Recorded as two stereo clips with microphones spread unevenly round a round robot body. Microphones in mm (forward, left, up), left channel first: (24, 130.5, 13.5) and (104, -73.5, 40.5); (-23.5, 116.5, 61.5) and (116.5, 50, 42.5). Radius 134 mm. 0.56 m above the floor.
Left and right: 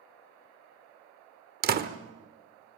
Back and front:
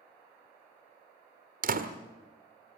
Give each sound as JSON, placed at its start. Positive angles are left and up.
{"t": 1.6, "sound": "a door slam", "azimuth_deg": -20, "distance_m": 1.6}